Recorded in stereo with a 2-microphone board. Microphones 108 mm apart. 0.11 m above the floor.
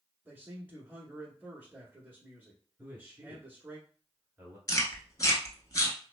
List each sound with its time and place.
0.2 s a man speaking: 15° right (ahead or behind), 1.1 m
2.8 s a man speaking: 20° right (ahead or behind), 1.5 m
4.7 s chewing: 35° left (ahead or behind), 0.7 m